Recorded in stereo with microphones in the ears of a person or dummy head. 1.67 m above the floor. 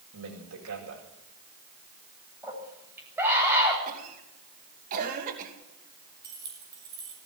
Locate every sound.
0.1 s a man speaking: 85° right, 8 m
2.4 s a scream: 10° right (ahead or behind), 9 m
3.9 s a cough: 45° right (ahead or behind), 2.5 m
6.2 s keys jangling: 20° right (ahead or behind), 8.5 m